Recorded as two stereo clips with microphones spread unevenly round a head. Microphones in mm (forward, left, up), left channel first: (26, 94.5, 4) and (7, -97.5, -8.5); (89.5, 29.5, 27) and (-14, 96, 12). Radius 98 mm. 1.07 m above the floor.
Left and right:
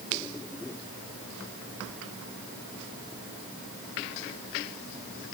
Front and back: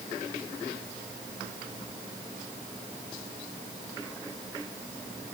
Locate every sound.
Only background noise.